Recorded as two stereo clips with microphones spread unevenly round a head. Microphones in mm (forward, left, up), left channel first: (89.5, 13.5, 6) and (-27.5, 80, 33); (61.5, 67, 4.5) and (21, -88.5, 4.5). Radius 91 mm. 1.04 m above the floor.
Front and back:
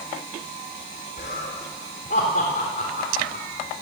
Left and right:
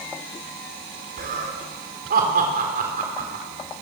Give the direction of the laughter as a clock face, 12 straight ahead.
3 o'clock.